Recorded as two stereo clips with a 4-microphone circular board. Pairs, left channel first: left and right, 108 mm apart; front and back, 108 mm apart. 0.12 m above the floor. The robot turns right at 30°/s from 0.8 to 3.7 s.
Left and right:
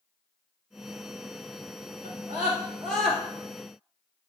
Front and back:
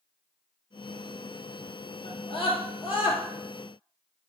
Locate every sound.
2.0 s a scream: 25° right, 3.5 m; by 3.2 s 10° left, 3.5 m